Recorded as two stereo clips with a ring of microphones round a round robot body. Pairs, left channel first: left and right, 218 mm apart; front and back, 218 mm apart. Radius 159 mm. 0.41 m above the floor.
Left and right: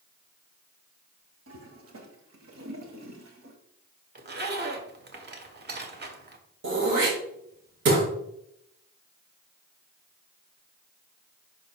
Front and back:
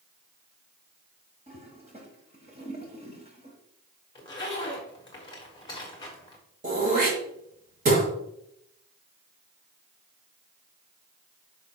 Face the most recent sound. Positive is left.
turn(degrees=-120)